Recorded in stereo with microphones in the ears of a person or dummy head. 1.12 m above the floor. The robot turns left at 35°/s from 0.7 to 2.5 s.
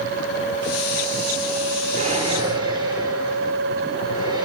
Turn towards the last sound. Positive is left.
turn(degrees=-20)  # may be behind; listen again after turning